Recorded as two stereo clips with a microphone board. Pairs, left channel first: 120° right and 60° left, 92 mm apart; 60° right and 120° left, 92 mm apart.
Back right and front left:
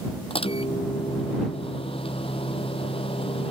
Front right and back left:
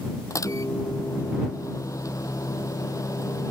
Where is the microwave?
115° right.